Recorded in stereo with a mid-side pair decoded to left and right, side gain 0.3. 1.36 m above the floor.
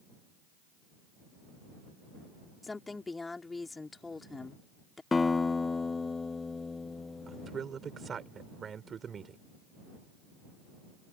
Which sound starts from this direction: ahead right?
A man speaking, at 7.3 s.